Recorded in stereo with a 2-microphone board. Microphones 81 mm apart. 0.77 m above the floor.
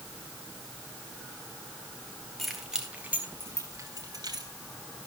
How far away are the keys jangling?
About 3 m.